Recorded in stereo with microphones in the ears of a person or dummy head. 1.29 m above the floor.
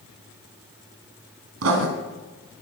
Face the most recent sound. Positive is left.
turn(degrees=-65)  # may be behind; listen again after turning